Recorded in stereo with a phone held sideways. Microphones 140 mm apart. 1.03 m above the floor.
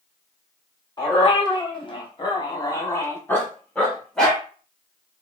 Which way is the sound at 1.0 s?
30° left (ahead or behind).